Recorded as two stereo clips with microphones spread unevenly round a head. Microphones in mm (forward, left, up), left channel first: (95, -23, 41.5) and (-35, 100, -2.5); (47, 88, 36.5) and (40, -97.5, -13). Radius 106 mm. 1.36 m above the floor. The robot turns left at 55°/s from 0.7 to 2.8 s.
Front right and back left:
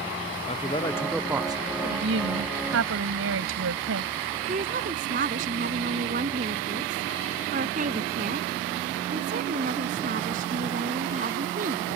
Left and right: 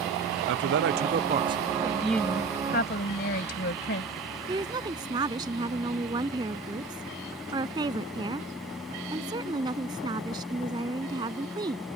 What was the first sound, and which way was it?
A man speaking, 110° right.